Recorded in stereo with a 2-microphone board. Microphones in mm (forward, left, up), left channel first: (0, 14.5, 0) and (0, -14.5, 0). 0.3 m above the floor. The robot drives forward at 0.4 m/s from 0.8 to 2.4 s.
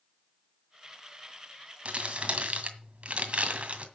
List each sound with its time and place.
1.9 s crumpling: 40° right (ahead or behind), 2 m; by 3.9 s 45° right (ahead or behind), 1.9 m